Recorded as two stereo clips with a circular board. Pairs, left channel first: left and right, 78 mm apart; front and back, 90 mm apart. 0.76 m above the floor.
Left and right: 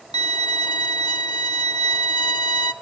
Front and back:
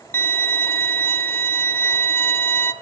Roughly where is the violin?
Ahead left.